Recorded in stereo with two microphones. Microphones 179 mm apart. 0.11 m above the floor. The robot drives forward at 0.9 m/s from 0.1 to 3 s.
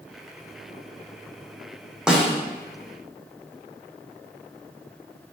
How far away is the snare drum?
About 1.1 m.